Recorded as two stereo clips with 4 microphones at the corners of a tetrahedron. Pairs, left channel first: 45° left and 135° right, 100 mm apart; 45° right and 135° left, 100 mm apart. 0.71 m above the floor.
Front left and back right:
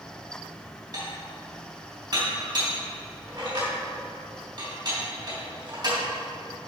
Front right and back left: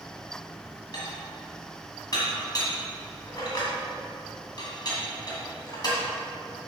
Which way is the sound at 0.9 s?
90° right.